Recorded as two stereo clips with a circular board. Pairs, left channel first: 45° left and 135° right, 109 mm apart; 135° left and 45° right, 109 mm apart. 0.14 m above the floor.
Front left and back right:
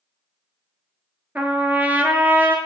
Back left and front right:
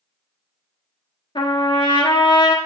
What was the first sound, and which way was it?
A trumpet, 155° left.